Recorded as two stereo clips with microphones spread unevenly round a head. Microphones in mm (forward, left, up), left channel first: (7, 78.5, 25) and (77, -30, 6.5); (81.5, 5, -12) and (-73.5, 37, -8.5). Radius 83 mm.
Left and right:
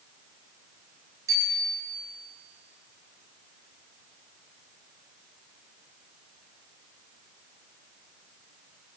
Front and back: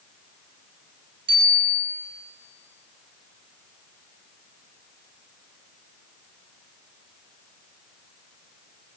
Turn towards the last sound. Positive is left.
turn(degrees=-130)